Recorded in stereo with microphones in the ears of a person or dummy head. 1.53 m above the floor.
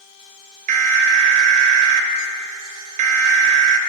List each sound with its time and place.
0.7 s an alarm: 45° right (ahead or behind), 0.7 m